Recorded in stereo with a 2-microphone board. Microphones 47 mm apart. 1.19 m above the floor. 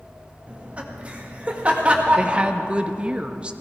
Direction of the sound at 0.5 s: 25° right (ahead or behind).